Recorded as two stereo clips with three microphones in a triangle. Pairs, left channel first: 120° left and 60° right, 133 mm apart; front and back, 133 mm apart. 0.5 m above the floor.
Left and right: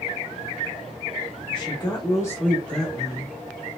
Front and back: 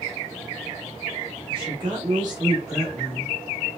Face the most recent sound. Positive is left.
turn(degrees=-125)